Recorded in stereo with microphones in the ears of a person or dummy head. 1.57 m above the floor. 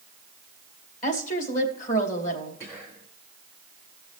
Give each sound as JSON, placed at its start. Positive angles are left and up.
{"t": 1.0, "sound": "a woman speaking", "side_deg": 50, "distance_m": 2.5}
{"t": 2.6, "sound": "whispering", "side_deg": 5, "distance_m": 1.4}